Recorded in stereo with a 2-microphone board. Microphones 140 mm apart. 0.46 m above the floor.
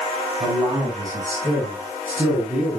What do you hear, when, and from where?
0.4 s a man speaking: 35° right (ahead or behind), 4.5 m; by 2.8 s 10° right (ahead or behind), 5 m